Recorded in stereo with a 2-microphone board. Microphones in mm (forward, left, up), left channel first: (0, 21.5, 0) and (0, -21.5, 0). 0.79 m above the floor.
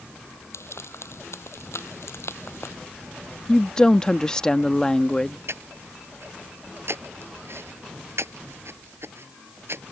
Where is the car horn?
I don't hear a car horn.